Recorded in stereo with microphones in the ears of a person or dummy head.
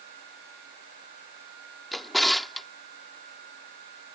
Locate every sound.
1.9 s a drawer: centre (ahead or behind)